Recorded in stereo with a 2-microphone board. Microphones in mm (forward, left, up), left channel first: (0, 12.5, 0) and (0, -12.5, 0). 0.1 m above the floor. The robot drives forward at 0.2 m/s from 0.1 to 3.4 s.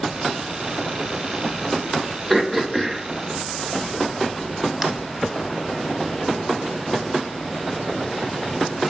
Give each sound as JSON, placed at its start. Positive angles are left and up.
{"t": 2.3, "sound": "throat clearing", "side_deg": -10, "distance_m": 0.6}